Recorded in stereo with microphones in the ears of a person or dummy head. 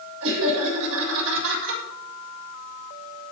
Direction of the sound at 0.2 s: 80° right.